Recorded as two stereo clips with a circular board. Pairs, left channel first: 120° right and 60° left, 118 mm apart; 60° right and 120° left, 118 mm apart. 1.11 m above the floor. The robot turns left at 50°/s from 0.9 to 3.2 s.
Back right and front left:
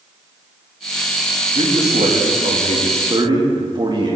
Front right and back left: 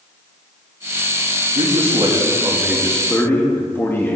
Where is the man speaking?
95° left, 2.5 m; by 4.2 s 10° left, 2.5 m.